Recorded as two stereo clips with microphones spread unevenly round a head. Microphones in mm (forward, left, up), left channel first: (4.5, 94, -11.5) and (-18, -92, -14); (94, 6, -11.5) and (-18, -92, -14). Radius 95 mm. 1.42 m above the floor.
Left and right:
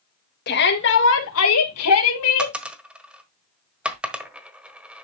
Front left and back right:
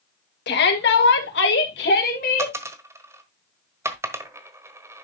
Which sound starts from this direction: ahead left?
A shout, at 0.5 s.